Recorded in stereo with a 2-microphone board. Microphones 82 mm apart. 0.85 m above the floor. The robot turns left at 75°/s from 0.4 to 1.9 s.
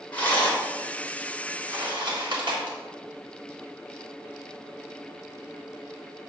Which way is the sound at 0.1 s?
20° left (ahead or behind).